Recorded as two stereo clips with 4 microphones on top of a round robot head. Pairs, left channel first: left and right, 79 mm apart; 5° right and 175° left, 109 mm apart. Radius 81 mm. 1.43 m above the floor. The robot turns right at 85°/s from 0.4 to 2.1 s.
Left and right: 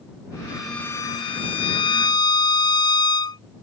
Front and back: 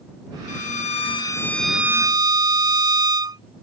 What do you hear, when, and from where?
0.5 s a violin: 15° right; by 3.4 s 125° left